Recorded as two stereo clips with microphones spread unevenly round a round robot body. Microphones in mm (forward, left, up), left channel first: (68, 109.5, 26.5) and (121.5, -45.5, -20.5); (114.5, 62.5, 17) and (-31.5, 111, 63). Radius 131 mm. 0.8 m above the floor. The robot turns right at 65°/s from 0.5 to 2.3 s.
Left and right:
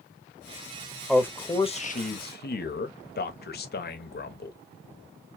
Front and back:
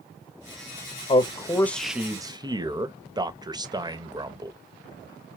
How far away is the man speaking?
About 0.9 m.